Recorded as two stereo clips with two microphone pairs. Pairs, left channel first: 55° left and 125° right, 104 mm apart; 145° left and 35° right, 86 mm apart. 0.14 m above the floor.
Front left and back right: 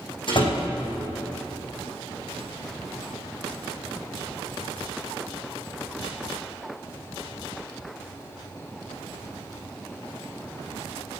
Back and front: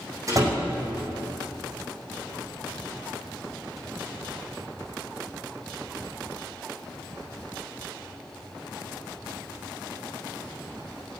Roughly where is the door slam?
Ahead.